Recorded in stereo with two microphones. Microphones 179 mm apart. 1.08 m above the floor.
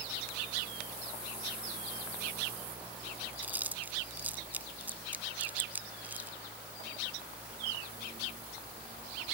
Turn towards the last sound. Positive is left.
turn(degrees=-10)  # may be behind; listen again after turning